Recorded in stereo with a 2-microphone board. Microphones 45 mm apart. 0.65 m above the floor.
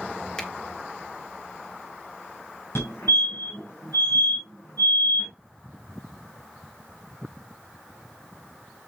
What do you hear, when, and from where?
0.4 s a finger snap: 20° left (ahead or behind), 1.8 m
2.8 s a fire alarm: 75° left (ahead or behind), 6 m